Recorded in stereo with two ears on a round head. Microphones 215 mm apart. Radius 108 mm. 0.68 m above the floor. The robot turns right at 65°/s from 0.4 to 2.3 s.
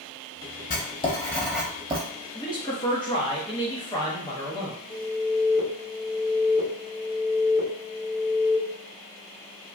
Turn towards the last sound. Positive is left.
turn(degrees=35)  # may be behind; listen again after turning